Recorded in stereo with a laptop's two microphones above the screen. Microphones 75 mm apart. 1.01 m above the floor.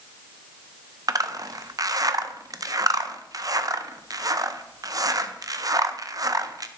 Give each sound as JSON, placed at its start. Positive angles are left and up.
{"t": 1.1, "sound": "a zipper", "side_deg": -50, "distance_m": 0.5}